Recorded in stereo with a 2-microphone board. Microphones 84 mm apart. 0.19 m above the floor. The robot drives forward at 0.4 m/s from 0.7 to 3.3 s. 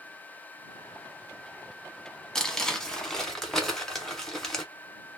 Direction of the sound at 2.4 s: 10° left (ahead or behind).